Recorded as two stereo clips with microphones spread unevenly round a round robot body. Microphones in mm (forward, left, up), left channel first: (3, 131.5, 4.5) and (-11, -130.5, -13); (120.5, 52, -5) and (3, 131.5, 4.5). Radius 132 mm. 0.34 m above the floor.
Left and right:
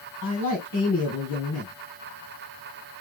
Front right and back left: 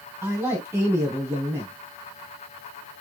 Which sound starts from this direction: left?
A man speaking, at 0.2 s.